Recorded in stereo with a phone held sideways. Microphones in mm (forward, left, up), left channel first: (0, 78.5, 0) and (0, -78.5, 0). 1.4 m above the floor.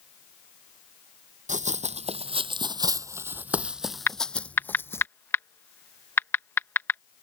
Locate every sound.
1.5 s running footsteps: 50° right (ahead or behind); by 5.1 s 15° left (ahead or behind)
4.1 s typing on a keyboard: 15° left (ahead or behind)